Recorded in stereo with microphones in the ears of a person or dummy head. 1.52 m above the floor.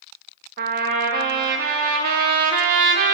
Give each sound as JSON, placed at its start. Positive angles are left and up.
{"t": 0.6, "sound": "a trumpet", "side_deg": -50, "distance_m": 0.6}